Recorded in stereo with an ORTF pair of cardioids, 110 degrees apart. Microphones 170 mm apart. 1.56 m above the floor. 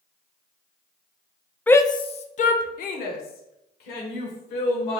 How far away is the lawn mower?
No lawn mower in this recording.